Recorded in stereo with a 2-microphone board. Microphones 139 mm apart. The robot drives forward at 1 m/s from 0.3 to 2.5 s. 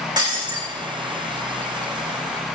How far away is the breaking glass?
About 4 m.